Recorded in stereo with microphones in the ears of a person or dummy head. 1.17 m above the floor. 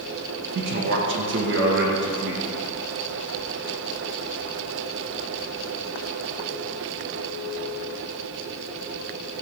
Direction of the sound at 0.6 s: 65° right (ahead or behind).